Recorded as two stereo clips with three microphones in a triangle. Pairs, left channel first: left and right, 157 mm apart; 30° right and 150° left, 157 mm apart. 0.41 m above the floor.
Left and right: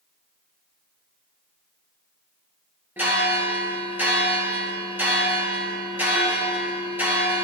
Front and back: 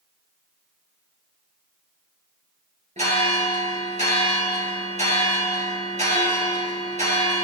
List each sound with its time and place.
3.0 s a bell: 170° right, 3.5 m